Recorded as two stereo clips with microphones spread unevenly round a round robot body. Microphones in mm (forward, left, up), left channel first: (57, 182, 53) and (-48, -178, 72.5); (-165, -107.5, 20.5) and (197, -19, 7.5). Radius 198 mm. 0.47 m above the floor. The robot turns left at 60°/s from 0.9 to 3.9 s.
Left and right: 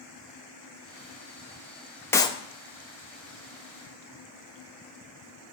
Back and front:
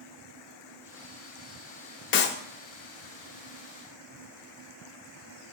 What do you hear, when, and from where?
2.1 s a clap: 150° left, 0.6 m; by 2.4 s 135° left, 0.6 m